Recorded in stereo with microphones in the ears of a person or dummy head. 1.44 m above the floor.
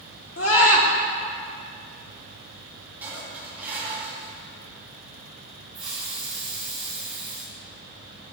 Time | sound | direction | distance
0.4 | a scream | 70° left (ahead or behind) | 1.8 m
3.0 | dishes clattering | 10° right (ahead or behind) | 1.8 m
5.7 | a hiss | 5° right (ahead or behind) | 3 m